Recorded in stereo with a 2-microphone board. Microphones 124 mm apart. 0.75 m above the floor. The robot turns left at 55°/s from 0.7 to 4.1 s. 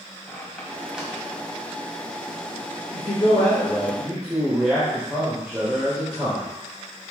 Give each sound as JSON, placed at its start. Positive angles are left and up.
{"t": 0.3, "sound": "a squeak", "side_deg": 10, "distance_m": 2.0}
{"t": 2.9, "sound": "a man speaking", "azimuth_deg": 55, "distance_m": 3.5}